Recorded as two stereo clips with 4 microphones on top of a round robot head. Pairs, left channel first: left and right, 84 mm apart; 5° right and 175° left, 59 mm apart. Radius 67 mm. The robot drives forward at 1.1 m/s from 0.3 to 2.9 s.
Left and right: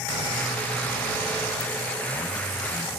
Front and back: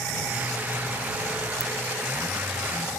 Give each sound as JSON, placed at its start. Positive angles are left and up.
{"t": 1.6, "sound": "a ringtone", "azimuth_deg": 55}